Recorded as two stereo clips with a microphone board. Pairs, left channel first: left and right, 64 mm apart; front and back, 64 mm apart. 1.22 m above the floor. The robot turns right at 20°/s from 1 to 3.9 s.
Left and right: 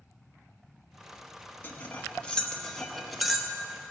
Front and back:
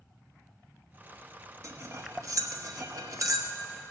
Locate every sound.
1.6 s cutlery clinking: 150° left, 0.8 m; by 3.5 s 175° right, 0.8 m